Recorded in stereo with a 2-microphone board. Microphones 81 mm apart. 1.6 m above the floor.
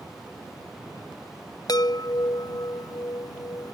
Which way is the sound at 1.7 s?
55° left (ahead or behind).